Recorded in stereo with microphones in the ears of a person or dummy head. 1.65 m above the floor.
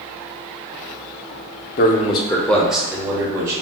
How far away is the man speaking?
About 0.7 m.